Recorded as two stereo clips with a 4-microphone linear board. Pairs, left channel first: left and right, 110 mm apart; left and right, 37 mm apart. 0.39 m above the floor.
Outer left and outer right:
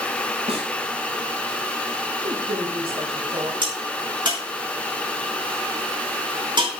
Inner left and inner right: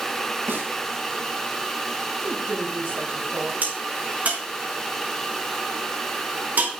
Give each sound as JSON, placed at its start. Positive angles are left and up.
{"t": 0.5, "sound": "a snare drum", "side_deg": -75, "distance_m": 4.5}
{"t": 2.2, "sound": "a woman speaking", "side_deg": -60, "distance_m": 9.0}
{"t": 3.6, "sound": "a crack", "side_deg": -50, "distance_m": 5.0}